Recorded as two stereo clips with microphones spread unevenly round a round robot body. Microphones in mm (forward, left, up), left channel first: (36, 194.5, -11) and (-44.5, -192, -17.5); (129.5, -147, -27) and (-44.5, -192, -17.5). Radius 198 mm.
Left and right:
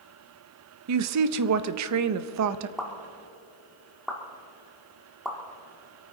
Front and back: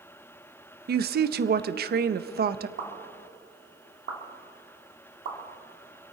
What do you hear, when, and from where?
0.9 s a woman speaking: 145° right, 0.6 m
2.8 s a pop: 170° left, 1.9 m